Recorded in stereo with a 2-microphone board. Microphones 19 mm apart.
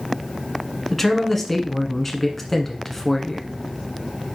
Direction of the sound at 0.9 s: 10° left (ahead or behind).